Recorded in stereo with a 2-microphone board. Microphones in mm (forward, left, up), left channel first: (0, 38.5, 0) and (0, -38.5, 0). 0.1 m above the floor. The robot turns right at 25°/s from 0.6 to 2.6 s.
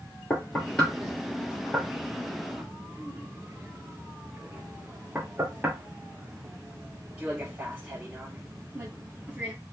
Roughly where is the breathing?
No breathing in this recording.